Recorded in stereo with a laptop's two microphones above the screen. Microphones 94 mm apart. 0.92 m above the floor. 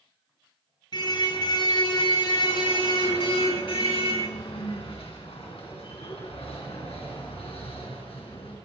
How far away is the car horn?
About 5.5 m.